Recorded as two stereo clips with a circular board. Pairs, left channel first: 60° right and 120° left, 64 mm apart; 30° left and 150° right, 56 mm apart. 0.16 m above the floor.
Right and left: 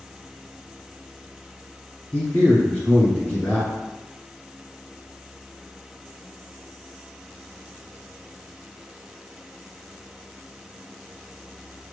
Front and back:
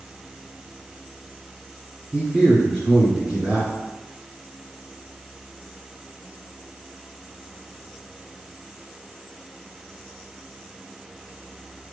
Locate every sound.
2.1 s a man speaking: 105° right, 2.0 m